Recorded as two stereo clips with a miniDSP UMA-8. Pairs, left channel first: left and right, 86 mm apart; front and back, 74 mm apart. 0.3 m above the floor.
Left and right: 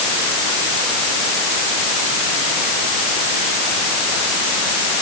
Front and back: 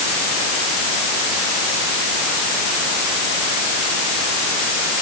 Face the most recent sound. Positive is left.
No sound to turn to.